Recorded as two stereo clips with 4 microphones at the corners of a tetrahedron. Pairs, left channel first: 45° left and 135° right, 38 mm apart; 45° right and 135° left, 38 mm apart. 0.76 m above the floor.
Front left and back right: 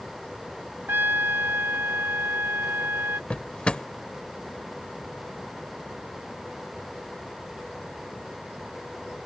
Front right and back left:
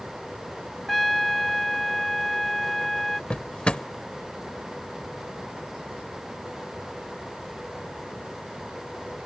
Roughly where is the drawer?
Ahead.